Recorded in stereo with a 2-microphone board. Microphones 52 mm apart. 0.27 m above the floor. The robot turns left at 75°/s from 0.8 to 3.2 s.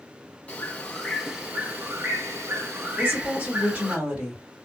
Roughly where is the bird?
Ahead left.